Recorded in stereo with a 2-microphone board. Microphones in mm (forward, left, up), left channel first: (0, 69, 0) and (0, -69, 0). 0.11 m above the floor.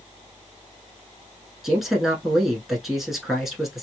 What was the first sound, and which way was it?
A man speaking, centre (ahead or behind).